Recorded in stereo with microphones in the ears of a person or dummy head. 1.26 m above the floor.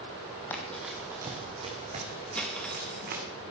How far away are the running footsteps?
About 1.9 m.